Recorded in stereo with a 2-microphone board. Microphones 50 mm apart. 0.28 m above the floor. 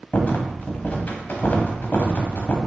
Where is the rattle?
45° left (ahead or behind), 0.7 m.